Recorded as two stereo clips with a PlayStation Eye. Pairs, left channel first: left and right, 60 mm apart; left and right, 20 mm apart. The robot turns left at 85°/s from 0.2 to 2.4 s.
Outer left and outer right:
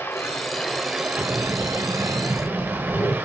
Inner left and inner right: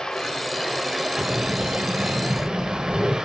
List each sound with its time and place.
0.0 s running water: 50° left, 1.1 m; by 3.3 s 135° right, 1.1 m
1.2 s breathing: 135° right, 1.2 m; by 3.2 s 120° left, 1.2 m